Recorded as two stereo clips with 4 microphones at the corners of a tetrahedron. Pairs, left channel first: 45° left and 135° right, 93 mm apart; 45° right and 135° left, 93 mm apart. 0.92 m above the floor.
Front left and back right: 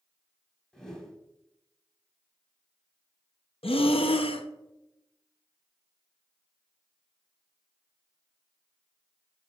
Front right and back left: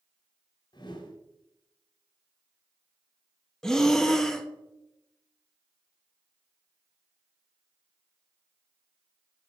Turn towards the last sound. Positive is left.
turn(degrees=40)